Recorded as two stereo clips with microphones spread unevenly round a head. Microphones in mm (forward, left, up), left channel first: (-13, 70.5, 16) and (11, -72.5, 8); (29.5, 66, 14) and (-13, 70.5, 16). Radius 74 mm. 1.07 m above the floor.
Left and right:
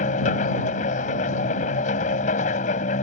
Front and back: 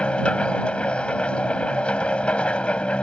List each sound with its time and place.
0.0 s a machine running: 60° left